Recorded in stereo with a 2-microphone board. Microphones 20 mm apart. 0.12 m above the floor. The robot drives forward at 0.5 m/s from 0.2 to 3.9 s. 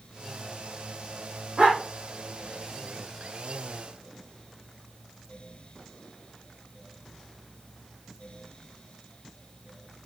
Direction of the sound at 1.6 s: 50° right (ahead or behind).